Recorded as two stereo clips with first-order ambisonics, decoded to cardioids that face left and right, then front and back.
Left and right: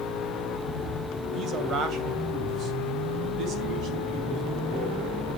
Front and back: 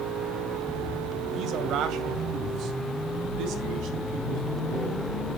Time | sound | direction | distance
1.3 | a man speaking | 140° right | 2 m